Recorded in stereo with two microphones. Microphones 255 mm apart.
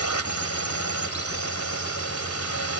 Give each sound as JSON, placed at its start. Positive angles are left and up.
{"t": 0.0, "sound": "a drone", "side_deg": 70}